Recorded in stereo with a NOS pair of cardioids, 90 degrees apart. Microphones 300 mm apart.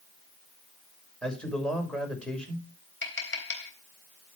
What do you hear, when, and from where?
1.2 s a man speaking: 5° left, 6 m
3.0 s tapping: 40° left, 3.5 m